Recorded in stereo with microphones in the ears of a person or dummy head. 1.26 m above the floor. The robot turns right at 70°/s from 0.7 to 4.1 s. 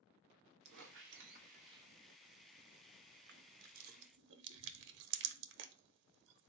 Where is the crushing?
60° right (ahead or behind), 0.5 m.